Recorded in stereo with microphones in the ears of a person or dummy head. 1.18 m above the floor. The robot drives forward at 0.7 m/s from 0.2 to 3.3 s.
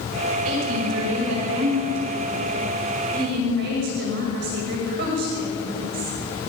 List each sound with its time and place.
0.5 s a woman speaking: 75° right (ahead or behind), 5 m; by 6.1 s 55° right (ahead or behind), 6 m